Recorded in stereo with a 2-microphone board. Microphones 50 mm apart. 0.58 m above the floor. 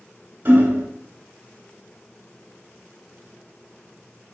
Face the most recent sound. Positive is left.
turn(degrees=-50)  # may be behind; listen again after turning